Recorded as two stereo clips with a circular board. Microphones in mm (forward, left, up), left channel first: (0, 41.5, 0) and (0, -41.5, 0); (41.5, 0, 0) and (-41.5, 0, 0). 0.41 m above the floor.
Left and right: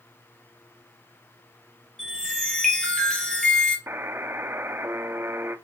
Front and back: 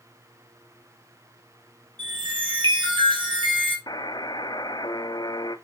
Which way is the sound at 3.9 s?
30° right.